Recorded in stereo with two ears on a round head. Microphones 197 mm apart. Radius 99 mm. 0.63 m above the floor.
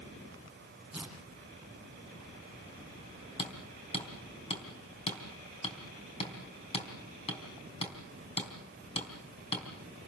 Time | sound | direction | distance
0.9 | tearing paper | 5° right (ahead or behind) | 6.5 m
3.4 | hammering | 30° left (ahead or behind) | 4 m